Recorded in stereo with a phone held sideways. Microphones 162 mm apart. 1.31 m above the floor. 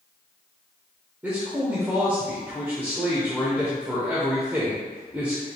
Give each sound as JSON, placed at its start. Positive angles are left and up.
{"t": 1.2, "sound": "a man speaking", "side_deg": -10, "distance_m": 0.9}